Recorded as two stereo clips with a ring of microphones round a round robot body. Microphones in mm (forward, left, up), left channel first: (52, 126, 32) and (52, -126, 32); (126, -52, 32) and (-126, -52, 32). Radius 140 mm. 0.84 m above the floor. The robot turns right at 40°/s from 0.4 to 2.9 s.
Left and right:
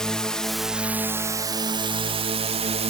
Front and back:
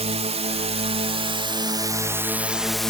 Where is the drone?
175° left; by 2.9 s 85° right.